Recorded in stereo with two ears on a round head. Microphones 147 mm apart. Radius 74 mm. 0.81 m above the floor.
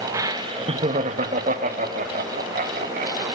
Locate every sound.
0.1 s laughter: 20° right (ahead or behind), 1.0 m; by 3.2 s 50° right (ahead or behind), 3 m